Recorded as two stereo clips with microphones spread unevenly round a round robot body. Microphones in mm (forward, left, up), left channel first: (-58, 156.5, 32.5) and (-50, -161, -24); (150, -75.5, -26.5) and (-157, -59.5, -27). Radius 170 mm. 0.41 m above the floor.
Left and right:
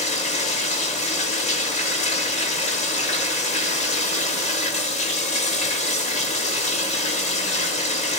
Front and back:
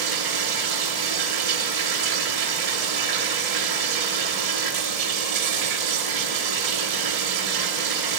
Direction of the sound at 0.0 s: 165° left.